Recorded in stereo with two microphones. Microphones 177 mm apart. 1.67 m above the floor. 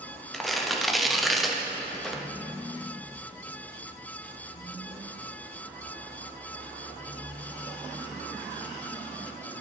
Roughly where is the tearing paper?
Centre.